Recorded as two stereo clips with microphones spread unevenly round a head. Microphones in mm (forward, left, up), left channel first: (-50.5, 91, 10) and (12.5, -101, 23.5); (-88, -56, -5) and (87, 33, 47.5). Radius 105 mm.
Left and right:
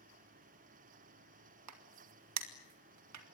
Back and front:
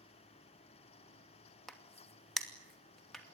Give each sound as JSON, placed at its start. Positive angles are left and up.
{"t": 1.7, "sound": "a crack", "azimuth_deg": -65, "distance_m": 2.5}